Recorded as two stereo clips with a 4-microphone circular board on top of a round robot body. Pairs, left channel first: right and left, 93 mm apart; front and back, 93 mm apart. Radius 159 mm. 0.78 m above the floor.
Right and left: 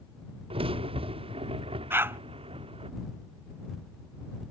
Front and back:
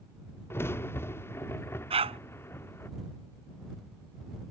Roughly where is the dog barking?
Behind.